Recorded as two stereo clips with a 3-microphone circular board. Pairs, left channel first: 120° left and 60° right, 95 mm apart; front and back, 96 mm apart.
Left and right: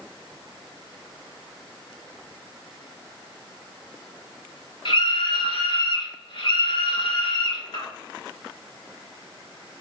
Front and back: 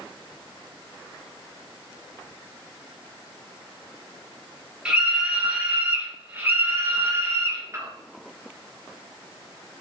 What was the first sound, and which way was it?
A scream, 100° left.